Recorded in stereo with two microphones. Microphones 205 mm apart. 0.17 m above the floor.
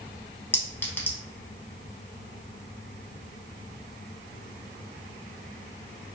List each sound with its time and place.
0.5 s a clink: 10° left (ahead or behind), 0.6 m